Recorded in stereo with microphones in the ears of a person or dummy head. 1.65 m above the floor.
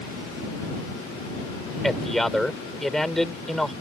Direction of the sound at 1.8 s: Centre (ahead or behind).